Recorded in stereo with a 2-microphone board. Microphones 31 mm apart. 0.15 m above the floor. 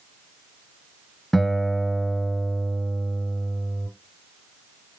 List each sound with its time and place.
1.3 s a guitar: 10° left (ahead or behind), 1.0 m